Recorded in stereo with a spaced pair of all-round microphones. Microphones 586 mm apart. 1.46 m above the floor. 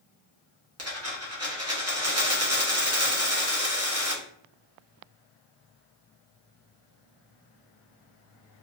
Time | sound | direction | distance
0.8 | a dropped coin | 25° right (ahead or behind) | 0.9 m